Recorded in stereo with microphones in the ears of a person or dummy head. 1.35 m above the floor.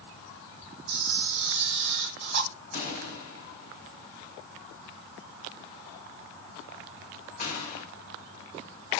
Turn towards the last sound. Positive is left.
turn(degrees=40)  # may be behind; listen again after turning